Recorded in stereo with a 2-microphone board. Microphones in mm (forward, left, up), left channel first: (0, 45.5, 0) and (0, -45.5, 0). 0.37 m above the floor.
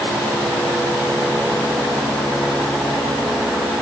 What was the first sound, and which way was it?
Only background noise.